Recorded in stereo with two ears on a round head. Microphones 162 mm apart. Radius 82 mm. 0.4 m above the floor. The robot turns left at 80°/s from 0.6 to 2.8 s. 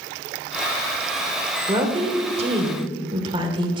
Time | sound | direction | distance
1.7 | a woman speaking | 40° right | 1.1 m